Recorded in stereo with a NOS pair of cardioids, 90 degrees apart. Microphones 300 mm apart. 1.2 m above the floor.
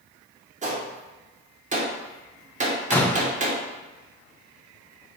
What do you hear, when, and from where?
0.6 s a gunshot: 25° right, 1.2 m
2.9 s a door slam: 5° left, 0.6 m